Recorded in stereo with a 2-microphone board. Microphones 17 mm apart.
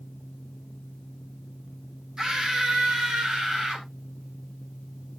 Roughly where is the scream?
Right.